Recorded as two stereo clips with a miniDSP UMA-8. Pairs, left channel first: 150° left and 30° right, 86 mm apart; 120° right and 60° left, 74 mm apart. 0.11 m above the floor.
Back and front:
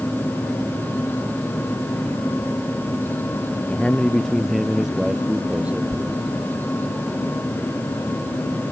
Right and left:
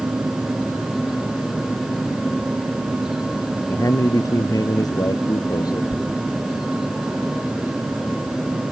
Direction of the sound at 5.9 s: 80° left.